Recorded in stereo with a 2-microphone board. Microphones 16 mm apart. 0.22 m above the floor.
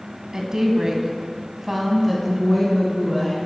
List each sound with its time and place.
0.3 s a woman speaking: 45° right (ahead or behind), 1.4 m; by 3.4 s 15° left (ahead or behind), 2 m